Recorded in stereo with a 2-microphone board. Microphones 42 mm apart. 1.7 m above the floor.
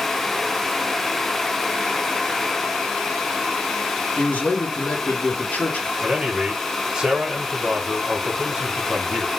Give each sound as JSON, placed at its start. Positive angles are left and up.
{"t": 4.2, "sound": "a man speaking", "side_deg": 35, "distance_m": 1.5}
{"t": 6.0, "sound": "a man speaking", "side_deg": -20, "distance_m": 1.3}